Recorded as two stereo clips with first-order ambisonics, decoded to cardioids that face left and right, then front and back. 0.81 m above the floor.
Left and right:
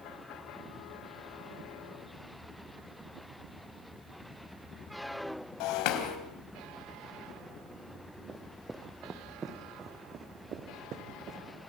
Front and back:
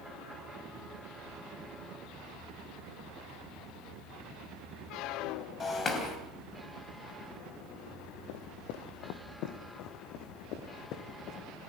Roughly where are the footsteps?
Ahead.